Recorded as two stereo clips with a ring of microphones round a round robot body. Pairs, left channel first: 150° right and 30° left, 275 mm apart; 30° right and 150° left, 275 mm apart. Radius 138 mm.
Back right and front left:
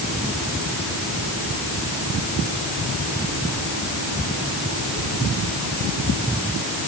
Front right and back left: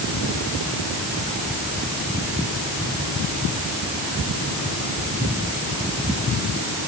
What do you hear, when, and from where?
Only background noise.